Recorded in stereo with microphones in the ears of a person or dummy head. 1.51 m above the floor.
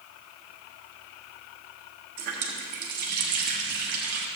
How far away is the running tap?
About 1.2 m.